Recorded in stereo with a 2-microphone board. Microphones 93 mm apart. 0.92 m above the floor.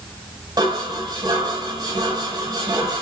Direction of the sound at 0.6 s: 40° right (ahead or behind).